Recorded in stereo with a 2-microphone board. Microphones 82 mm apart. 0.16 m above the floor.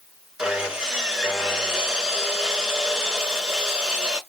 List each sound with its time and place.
0.4 s sawing: 10° right (ahead or behind), 1.7 m